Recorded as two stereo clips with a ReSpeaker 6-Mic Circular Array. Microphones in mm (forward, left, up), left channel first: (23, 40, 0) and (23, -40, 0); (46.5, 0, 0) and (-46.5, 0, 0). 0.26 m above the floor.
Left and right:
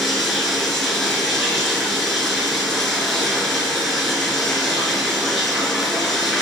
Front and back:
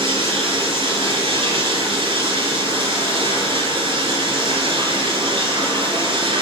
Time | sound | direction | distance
0.0 | running water | straight behind | 3.5 m